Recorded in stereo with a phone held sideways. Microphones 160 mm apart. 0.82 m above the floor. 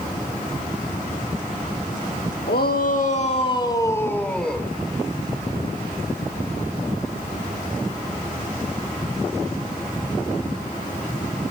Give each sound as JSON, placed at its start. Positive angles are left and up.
{"t": 2.5, "sound": "a shout", "side_deg": 75, "distance_m": 1.6}